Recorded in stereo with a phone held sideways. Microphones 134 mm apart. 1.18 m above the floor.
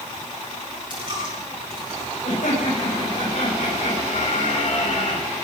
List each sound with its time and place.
0.9 s a dropped coin: 35° right (ahead or behind), 8.5 m
2.2 s laughter: 80° left, 7 m